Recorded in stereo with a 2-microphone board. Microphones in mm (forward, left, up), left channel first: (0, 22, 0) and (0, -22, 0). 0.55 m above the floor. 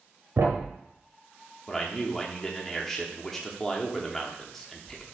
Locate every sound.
0.4 s a thud: 80° right, 0.9 m
1.7 s a man speaking: 10° left (ahead or behind), 0.8 m